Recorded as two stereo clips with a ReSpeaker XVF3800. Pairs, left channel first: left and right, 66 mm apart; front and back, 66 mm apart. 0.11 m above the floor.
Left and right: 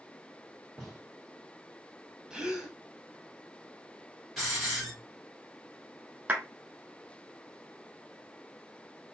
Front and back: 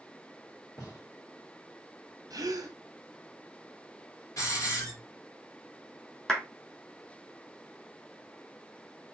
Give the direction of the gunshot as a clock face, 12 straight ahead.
12 o'clock.